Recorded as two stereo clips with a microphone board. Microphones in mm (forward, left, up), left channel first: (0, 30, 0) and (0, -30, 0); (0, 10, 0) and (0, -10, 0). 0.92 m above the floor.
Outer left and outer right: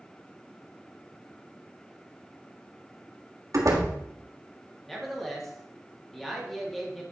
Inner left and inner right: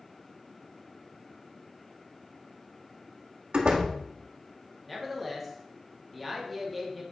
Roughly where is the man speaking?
Centre.